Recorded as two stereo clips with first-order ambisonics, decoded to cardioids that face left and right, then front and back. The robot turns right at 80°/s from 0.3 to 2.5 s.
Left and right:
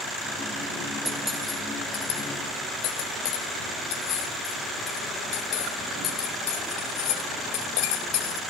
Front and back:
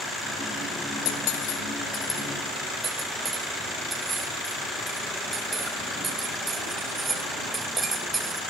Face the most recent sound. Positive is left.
turn(degrees=105)